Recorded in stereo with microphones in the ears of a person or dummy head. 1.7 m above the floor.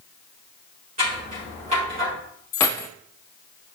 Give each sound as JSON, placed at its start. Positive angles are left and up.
{"t": 1.0, "sound": "scissors", "side_deg": -30, "distance_m": 4.0}
{"t": 2.5, "sound": "keys jangling", "side_deg": 15, "distance_m": 0.7}